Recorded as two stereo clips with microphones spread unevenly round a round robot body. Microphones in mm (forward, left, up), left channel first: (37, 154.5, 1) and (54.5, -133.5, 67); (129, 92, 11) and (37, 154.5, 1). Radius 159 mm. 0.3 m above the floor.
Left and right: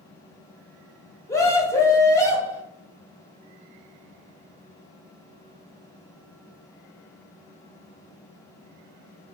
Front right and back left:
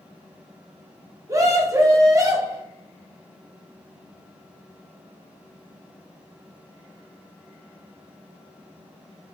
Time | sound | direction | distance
1.3 | a scream | 140° left | 1.2 m